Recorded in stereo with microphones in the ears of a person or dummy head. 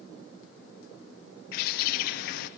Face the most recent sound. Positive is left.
turn(degrees=55)  # may be behind; listen again after turning